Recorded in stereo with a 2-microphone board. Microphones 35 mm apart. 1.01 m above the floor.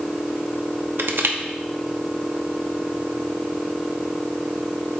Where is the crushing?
70° right (ahead or behind), 0.7 m.